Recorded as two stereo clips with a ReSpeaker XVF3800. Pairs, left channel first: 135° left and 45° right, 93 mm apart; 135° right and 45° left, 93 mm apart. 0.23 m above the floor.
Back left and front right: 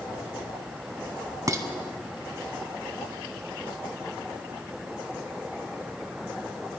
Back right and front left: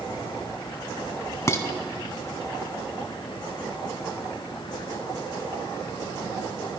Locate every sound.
1.5 s dishes clattering: 85° right, 1.0 m